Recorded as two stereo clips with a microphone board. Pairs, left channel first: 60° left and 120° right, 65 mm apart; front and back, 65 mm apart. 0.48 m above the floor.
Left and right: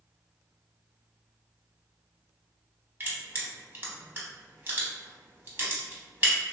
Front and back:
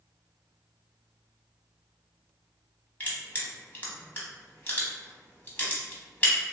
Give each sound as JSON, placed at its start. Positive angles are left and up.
{"t": 3.0, "sound": "crushing", "azimuth_deg": -65, "distance_m": 0.7}